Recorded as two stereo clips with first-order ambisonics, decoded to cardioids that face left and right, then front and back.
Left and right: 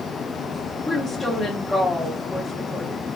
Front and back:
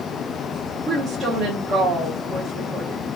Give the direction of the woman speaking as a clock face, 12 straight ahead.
7 o'clock.